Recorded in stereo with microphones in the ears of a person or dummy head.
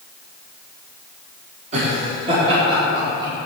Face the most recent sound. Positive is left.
turn(degrees=-25)  # may be behind; listen again after turning